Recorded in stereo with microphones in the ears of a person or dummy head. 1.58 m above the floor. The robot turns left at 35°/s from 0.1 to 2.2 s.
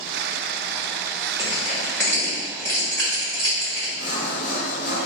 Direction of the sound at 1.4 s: 15° right (ahead or behind).